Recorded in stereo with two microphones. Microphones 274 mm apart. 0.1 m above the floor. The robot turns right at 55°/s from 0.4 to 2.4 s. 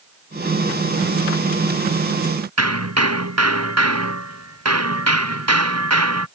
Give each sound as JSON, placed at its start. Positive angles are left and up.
{"t": 2.6, "sound": "hammering", "side_deg": -75}